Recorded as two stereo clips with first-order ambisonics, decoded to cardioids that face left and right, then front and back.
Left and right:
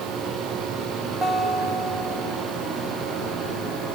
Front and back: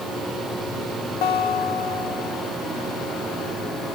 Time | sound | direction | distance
1.2 | a guitar | 15° right | 2.5 m